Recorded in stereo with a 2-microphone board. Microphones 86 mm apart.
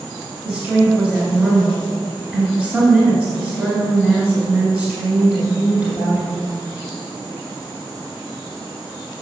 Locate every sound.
0.5 s a woman speaking: 15° right (ahead or behind), 1.9 m